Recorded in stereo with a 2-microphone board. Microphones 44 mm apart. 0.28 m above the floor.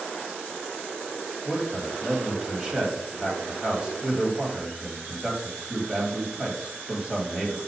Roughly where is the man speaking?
Centre.